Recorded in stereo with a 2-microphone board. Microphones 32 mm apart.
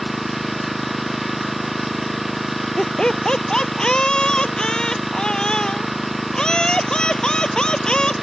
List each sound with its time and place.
0.0 s an engine running: centre (ahead or behind)
2.8 s laughter: 30° left (ahead or behind)